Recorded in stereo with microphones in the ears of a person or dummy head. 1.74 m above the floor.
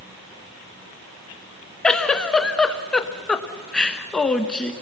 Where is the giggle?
10° left (ahead or behind), 1.1 m.